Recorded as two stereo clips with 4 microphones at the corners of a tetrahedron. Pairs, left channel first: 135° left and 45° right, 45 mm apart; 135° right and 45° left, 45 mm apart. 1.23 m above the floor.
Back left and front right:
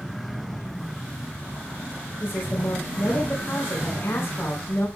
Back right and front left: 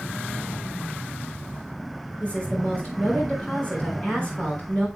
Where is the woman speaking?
160° left, 4 m.